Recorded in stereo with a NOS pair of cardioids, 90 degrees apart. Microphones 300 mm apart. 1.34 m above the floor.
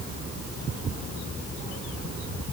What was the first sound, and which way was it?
Only background noise.